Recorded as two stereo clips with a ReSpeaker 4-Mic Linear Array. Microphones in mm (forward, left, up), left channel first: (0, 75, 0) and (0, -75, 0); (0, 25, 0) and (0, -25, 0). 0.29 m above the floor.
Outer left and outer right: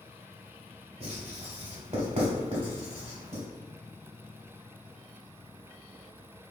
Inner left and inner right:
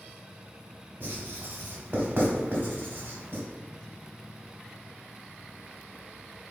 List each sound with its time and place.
1.0 s writing: 45° right (ahead or behind), 1.4 m